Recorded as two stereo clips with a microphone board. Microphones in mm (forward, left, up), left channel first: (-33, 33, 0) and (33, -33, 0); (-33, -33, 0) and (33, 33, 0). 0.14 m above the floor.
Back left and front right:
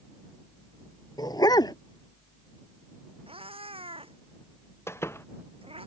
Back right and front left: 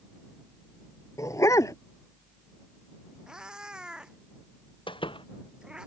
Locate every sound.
1.2 s a dog barking: 175° left
3.3 s a cat meowing: 35° right
4.9 s a door slam: 160° right